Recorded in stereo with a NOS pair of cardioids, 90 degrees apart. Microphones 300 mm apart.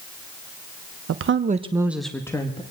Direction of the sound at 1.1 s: 55° right.